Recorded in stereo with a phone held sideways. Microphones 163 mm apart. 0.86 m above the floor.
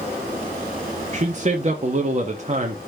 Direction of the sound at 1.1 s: 45° right (ahead or behind).